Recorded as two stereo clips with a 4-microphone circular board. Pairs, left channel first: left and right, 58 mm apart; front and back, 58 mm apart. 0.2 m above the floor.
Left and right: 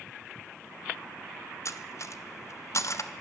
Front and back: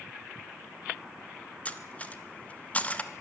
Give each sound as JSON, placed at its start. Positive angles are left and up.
{"t": 1.6, "sound": "cutlery clinking", "azimuth_deg": 65, "distance_m": 1.4}